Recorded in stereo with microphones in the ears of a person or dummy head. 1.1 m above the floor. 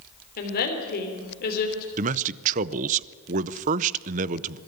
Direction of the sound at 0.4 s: 50° left (ahead or behind).